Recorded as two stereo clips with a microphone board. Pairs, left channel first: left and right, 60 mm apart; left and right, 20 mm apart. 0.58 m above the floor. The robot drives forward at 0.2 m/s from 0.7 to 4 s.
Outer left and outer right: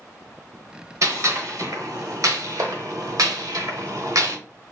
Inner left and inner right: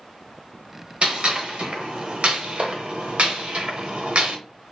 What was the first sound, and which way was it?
A gunshot, 60° right (ahead or behind).